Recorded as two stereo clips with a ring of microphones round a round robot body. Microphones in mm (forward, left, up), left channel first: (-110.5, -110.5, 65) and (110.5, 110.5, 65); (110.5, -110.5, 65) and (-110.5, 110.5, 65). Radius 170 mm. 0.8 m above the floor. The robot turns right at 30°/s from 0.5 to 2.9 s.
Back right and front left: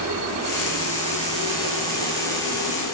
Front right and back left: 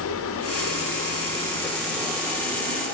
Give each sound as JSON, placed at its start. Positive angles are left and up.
{"t": 0.0, "sound": "running water", "azimuth_deg": 5, "distance_m": 1.4}